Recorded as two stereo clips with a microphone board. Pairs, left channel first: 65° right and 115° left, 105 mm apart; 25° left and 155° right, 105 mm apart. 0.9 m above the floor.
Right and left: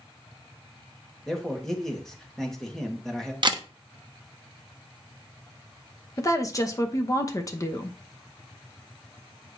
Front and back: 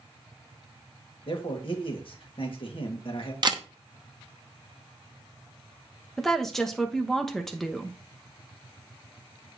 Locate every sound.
1.3 s a man speaking: 15° left, 1.6 m
3.4 s a camera shutter: 155° left, 0.8 m
6.2 s a woman speaking: 60° right, 0.9 m